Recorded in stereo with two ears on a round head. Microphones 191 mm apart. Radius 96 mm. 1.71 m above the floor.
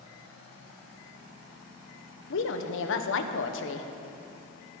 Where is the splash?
I don't hear a splash.